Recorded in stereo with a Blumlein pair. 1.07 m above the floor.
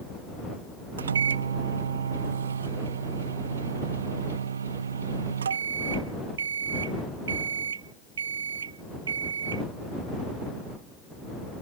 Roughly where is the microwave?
Right.